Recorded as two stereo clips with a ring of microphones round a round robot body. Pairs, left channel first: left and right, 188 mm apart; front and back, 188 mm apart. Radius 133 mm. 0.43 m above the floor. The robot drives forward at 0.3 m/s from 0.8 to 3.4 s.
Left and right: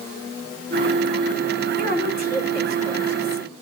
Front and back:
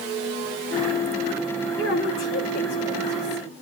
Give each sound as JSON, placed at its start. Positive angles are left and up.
{"t": 1.8, "sound": "a woman speaking", "azimuth_deg": -50, "distance_m": 4.0}